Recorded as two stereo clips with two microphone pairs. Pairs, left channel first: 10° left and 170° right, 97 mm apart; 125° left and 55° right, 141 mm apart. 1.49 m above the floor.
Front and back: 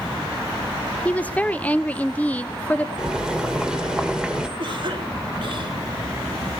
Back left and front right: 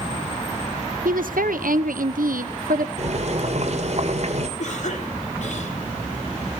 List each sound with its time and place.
1.1 s a woman speaking: 65° right, 0.8 m
3.0 s boiling: 90° right, 2 m
4.6 s a cough: 160° left, 5.5 m